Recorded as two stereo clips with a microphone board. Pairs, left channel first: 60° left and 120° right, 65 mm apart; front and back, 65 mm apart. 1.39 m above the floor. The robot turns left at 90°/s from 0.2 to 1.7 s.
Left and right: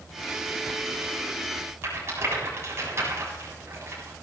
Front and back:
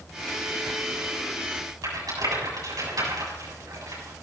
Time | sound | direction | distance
1.8 | a rattle | 165° right | 8 m